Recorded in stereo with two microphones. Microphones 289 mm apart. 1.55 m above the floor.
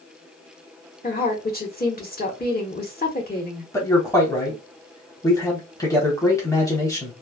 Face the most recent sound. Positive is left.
turn(degrees=10)  # may be behind; listen again after turning